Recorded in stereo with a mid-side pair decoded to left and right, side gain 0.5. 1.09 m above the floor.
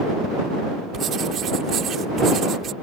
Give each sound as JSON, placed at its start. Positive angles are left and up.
{"t": 0.9, "sound": "writing", "azimuth_deg": -55}